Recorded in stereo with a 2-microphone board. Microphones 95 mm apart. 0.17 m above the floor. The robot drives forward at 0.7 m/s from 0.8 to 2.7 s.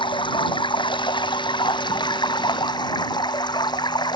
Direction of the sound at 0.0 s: 55° left (ahead or behind).